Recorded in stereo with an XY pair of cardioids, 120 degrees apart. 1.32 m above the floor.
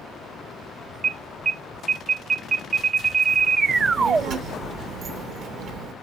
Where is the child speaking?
55° right, 0.9 m.